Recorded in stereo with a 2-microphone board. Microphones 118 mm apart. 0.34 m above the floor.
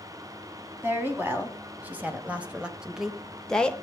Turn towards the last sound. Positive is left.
turn(degrees=10)  # may be behind; listen again after turning